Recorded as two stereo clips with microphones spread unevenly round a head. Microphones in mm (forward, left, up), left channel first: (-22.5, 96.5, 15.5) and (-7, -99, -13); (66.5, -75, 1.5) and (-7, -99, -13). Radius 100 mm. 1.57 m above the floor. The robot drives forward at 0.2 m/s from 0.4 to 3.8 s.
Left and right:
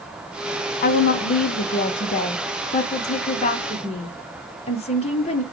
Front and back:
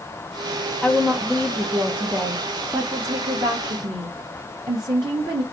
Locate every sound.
0.8 s a woman speaking: 100° left, 0.6 m; by 5.4 s 145° left, 0.9 m